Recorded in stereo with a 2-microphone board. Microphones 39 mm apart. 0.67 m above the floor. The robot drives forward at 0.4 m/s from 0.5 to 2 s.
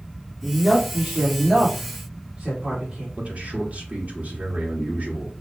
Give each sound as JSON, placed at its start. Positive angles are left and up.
{"t": 0.4, "sound": "a woman speaking", "side_deg": -25, "distance_m": 1.6}
{"t": 3.2, "sound": "a man speaking", "side_deg": -40, "distance_m": 1.4}